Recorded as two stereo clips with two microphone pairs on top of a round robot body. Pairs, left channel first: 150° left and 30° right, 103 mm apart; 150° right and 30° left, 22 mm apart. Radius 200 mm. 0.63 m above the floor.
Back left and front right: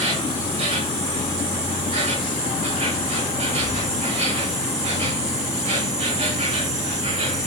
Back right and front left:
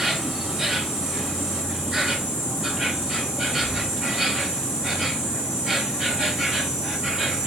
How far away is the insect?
About 3.5 m.